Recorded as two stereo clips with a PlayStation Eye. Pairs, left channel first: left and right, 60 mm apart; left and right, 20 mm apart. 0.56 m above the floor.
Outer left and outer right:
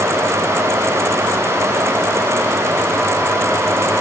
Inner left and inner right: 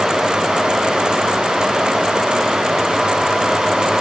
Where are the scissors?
No scissors in this recording.